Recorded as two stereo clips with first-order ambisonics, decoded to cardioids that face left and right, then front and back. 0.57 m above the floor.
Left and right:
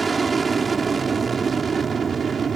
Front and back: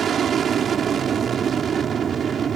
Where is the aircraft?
155° right; by 2.6 s 140° right.